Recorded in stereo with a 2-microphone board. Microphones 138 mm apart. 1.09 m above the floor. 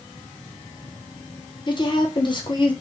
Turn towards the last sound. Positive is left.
turn(degrees=35)  # may be behind; listen again after turning